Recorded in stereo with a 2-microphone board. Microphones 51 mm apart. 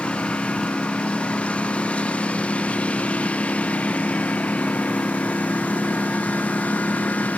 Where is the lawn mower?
20° left (ahead or behind); by 7.4 s 30° left (ahead or behind).